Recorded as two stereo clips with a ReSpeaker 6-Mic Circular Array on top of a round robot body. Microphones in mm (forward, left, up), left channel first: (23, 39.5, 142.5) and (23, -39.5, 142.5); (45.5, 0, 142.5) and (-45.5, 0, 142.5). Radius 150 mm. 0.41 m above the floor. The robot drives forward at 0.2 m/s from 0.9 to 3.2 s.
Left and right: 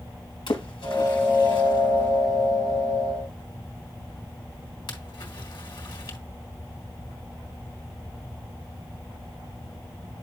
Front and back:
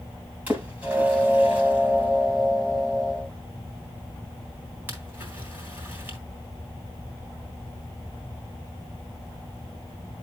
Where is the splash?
105° left, 4 m; by 6.2 s 110° left, 4 m.